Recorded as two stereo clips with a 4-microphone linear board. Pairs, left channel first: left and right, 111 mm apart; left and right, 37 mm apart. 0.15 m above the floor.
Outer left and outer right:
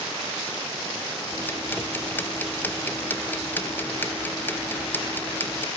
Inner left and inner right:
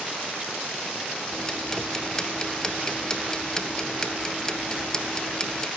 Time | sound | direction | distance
1.3 | ticking | 20° left (ahead or behind) | 0.8 m